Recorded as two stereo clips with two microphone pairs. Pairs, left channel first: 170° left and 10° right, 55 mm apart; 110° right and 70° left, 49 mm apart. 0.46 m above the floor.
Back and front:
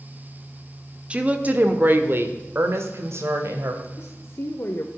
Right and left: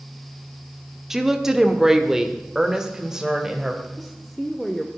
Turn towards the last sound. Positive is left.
turn(degrees=170)